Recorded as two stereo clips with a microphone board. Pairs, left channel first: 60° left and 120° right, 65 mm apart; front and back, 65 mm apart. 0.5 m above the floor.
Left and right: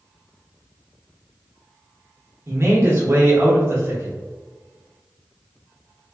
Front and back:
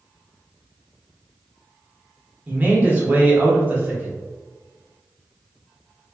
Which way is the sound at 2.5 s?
130° right.